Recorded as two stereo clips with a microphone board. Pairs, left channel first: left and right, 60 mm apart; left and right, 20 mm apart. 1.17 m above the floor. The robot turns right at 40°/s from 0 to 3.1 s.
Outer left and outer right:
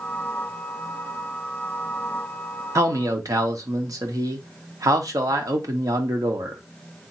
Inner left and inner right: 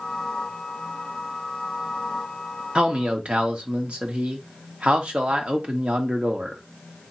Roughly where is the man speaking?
Right.